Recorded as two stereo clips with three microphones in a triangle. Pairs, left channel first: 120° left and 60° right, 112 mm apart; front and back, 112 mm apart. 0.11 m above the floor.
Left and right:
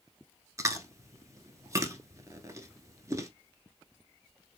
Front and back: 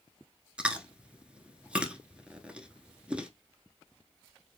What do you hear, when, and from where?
0.6 s chewing: 105° right, 0.7 m